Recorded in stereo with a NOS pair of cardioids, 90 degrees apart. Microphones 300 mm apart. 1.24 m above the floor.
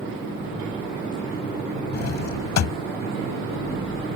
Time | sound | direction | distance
1.9 | a drawer | 60° left | ?